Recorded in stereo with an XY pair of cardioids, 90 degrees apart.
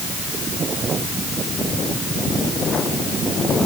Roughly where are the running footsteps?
No running footsteps in this recording.